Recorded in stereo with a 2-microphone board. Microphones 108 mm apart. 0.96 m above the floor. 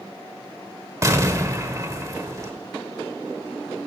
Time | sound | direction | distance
1.0 | an explosion | 30° right (ahead or behind) | 1.2 m